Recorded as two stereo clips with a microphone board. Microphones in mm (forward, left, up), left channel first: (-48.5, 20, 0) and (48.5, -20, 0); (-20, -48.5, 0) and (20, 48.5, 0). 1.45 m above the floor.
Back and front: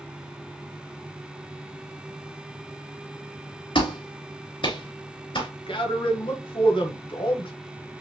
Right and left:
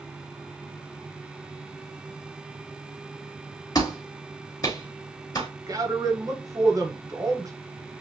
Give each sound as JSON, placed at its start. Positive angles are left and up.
{"t": 3.8, "sound": "a clap", "azimuth_deg": -165, "distance_m": 2.5}
{"t": 5.7, "sound": "a man speaking", "azimuth_deg": 125, "distance_m": 1.5}